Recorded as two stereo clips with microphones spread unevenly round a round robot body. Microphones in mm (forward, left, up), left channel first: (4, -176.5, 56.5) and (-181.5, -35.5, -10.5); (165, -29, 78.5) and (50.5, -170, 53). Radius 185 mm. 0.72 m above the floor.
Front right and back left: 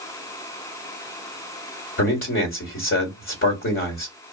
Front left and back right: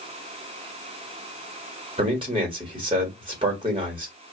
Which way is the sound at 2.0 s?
75° right.